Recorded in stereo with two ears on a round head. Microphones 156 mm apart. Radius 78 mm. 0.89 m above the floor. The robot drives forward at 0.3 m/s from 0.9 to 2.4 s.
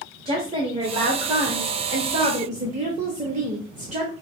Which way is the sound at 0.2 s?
30° right (ahead or behind).